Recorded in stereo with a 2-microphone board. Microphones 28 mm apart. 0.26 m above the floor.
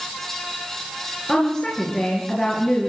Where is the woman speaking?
30° left (ahead or behind), 4.5 m; by 2.9 s 40° left (ahead or behind), 3.5 m.